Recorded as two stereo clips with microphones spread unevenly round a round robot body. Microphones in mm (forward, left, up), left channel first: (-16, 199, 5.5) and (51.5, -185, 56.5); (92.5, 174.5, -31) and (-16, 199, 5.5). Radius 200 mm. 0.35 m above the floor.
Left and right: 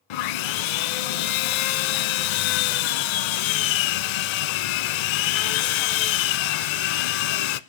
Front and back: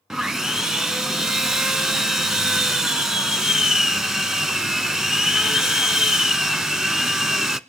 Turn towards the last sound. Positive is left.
turn(degrees=80)